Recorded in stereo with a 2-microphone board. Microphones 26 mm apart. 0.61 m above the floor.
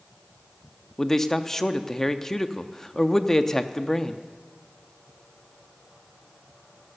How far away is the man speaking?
About 0.6 m.